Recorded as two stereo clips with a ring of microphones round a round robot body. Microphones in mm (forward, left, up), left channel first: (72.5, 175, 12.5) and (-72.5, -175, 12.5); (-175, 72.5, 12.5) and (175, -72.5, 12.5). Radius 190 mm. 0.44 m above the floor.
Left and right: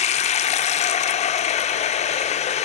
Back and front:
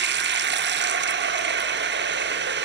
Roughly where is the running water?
Ahead.